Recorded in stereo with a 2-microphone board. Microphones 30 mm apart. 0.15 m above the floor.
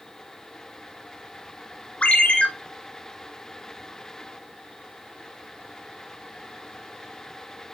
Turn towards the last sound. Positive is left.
turn(degrees=45)  # may be behind; listen again after turning